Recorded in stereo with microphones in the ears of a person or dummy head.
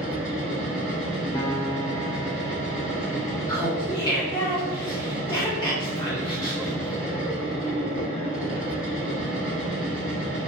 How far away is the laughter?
About 0.6 m.